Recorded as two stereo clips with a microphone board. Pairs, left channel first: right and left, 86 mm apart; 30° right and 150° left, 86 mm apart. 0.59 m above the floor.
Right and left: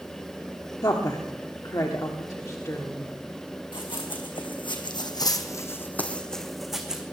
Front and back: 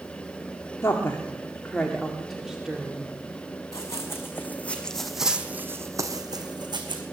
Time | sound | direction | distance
0.8 | a woman speaking | 75° right | 1.4 m
3.7 | running footsteps | 85° right | 2.5 m